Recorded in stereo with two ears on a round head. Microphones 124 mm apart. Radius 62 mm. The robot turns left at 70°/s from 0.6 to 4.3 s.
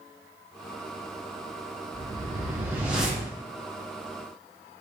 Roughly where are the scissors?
No scissors in this recording.